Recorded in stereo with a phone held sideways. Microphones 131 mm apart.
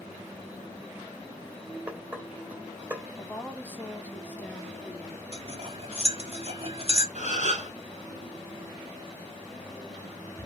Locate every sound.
1.9 s dishes clattering: 10° right (ahead or behind), 3.5 m
3.2 s a woman speaking: 15° left (ahead or behind), 1.7 m
5.3 s cutlery clinking: 45° right (ahead or behind), 1.5 m
7.2 s a gasp: 65° right (ahead or behind), 2 m